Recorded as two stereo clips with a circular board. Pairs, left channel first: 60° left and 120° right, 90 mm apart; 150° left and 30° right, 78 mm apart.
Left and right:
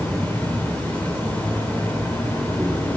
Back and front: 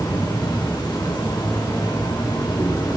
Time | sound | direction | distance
0.0 | an insect | 135° left | 3 m